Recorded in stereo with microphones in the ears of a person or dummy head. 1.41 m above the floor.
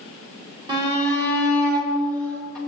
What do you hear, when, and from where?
0.7 s a shout: 25° right (ahead or behind), 3.5 m; by 2.6 s 20° right (ahead or behind), 5 m